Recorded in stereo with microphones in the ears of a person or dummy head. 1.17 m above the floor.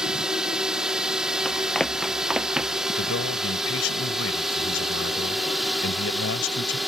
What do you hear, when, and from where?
0.0 s a drone: 5° right (ahead or behind); by 6.9 s centre (ahead or behind)
1.4 s running footsteps: 5° left (ahead or behind); by 2.9 s 5° right (ahead or behind)
3.0 s a man speaking: 85° left